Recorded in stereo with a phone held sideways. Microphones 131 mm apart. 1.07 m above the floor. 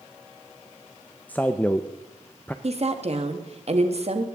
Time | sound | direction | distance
1.3 | a man speaking | 10° left (ahead or behind) | 0.5 m
2.6 | a woman speaking | 55° right (ahead or behind) | 1.3 m